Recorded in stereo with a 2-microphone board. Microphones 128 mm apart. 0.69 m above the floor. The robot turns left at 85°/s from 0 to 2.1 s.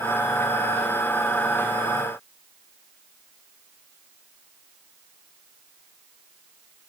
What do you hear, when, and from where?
Only background noise.